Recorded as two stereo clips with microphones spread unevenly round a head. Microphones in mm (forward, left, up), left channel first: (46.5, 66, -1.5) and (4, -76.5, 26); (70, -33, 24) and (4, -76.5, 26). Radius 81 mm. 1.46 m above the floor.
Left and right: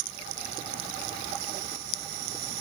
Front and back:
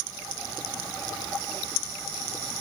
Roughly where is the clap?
I don't hear a clap.